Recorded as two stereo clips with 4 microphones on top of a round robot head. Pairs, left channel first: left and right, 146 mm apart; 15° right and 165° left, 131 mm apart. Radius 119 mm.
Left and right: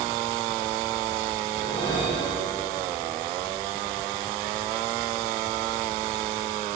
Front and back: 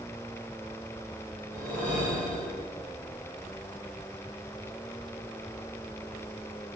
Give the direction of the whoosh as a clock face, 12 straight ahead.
7 o'clock.